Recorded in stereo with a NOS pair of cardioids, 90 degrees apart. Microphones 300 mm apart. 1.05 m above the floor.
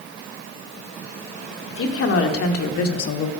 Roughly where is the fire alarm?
I don't hear a fire alarm.